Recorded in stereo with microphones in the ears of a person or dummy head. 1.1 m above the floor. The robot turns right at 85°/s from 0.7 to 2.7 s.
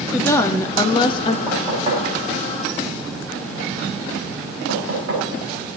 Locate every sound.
0.1 s a woman speaking: 15° left (ahead or behind), 0.6 m; by 1.4 s 25° left (ahead or behind), 0.6 m
1.5 s knocking: centre (ahead or behind), 6 m; by 5.2 s 75° right (ahead or behind), 6 m